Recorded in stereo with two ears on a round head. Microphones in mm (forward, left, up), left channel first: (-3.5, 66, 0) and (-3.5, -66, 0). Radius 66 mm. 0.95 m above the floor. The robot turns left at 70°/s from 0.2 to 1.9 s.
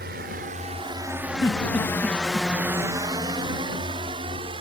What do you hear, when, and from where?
0.0 s a drone: 70° right (ahead or behind); by 4.6 s 35° right (ahead or behind)
1.4 s a giggle: 25° left (ahead or behind); by 2.5 s 10° right (ahead or behind)